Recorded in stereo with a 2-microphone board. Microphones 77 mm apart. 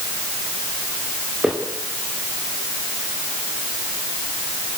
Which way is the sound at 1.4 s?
15° right (ahead or behind).